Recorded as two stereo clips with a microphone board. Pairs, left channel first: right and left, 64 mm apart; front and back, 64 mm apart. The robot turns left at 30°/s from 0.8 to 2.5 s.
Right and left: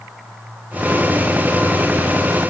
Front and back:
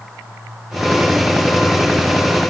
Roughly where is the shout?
I don't hear a shout.